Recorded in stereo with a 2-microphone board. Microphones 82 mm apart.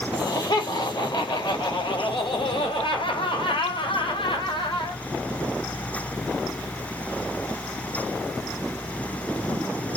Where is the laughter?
55° left (ahead or behind), 4.5 m; by 5.0 s 75° left (ahead or behind), 5 m.